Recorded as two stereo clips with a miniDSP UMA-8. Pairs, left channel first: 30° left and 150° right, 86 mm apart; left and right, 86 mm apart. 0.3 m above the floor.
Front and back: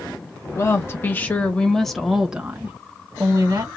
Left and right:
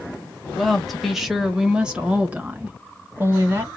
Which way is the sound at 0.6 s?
Straight ahead.